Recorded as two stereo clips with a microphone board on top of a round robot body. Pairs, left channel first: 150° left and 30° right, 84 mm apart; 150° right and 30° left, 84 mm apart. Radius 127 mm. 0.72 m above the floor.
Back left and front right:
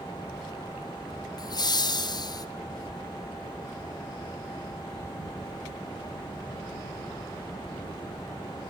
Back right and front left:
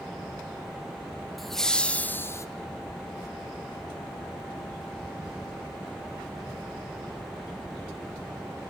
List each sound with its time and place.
1.4 s laughter: 120° left, 2 m; by 2.5 s 165° left, 1.3 m